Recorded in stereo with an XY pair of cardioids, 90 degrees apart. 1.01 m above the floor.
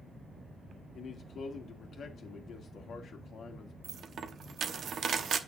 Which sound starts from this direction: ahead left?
A man speaking, at 0.9 s.